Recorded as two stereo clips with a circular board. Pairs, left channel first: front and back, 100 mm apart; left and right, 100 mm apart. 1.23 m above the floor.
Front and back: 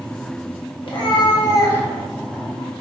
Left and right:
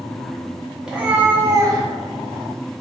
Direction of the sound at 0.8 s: 10° right.